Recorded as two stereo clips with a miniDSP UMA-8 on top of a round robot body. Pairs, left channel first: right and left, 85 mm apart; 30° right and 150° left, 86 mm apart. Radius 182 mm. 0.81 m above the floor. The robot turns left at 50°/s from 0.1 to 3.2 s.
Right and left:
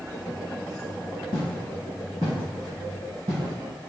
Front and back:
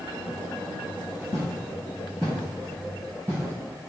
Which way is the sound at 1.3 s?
50° right.